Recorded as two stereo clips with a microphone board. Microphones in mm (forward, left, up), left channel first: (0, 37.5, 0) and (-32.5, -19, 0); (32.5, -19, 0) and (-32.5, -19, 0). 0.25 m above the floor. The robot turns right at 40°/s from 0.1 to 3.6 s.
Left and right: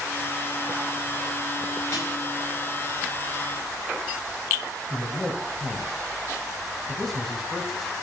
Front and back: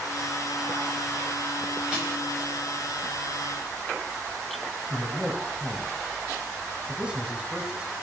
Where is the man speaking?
140° left, 1.0 m.